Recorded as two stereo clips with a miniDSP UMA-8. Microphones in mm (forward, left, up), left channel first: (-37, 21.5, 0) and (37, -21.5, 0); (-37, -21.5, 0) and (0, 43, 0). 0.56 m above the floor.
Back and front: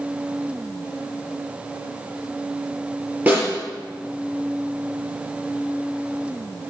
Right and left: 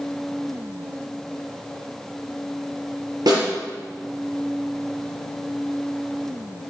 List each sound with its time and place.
3.3 s a snare drum: 40° left, 5 m